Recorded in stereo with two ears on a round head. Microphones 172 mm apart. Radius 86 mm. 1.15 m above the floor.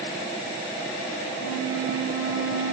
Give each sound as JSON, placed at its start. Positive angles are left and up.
{"t": 1.4, "sound": "a flute", "side_deg": 75, "distance_m": 4.5}